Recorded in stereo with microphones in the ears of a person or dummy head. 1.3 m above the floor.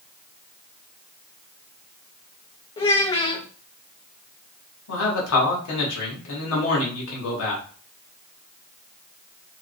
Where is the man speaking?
85° left, 1.2 m.